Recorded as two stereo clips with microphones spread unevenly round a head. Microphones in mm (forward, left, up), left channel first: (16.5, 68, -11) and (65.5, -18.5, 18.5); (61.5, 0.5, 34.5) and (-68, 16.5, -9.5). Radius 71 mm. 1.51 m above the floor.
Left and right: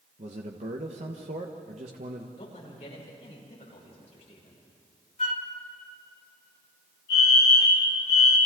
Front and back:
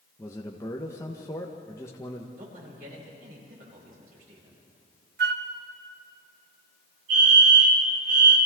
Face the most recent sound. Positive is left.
turn(degrees=180)